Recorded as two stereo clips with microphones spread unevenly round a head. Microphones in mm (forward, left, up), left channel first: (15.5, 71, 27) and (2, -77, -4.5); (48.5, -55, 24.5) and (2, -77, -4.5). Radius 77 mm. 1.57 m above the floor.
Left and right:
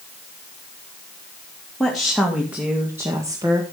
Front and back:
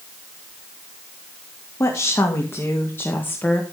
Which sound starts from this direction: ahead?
A woman speaking, at 1.8 s.